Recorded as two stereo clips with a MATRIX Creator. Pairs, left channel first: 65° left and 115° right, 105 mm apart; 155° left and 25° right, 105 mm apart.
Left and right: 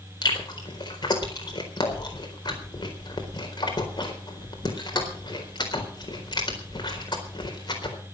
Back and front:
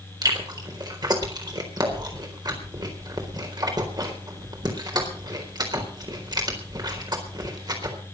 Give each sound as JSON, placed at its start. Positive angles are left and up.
{"t": 0.2, "sound": "chewing", "azimuth_deg": 25, "distance_m": 4.0}